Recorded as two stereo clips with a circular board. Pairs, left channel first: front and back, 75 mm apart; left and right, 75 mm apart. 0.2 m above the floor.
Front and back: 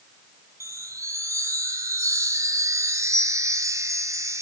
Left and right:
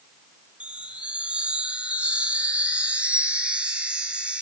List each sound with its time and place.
0.6 s a chime: 160° right, 1.9 m